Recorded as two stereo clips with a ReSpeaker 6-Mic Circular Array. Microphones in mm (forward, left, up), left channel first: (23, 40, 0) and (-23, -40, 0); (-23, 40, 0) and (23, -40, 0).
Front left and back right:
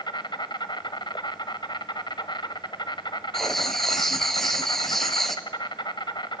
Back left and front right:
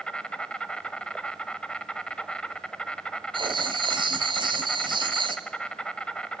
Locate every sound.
0.0 s an insect: 40° left, 1.1 m
3.3 s writing: 25° right, 1.5 m